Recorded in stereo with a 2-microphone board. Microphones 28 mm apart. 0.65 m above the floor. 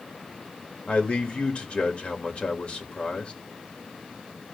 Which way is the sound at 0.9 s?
55° left (ahead or behind).